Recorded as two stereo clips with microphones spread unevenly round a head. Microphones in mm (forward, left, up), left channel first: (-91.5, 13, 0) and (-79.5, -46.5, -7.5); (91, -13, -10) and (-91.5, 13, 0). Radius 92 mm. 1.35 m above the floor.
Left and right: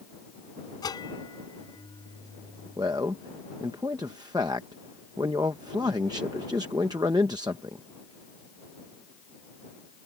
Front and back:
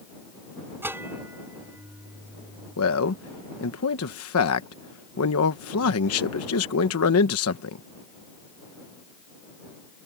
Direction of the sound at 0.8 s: 95° left.